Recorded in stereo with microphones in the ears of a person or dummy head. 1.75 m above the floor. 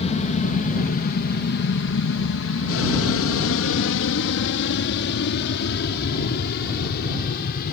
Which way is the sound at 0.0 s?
40° left (ahead or behind).